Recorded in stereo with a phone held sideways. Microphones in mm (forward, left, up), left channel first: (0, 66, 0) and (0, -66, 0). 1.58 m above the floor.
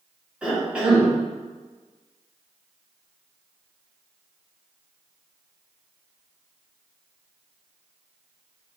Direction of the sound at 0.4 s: 10° right (ahead or behind).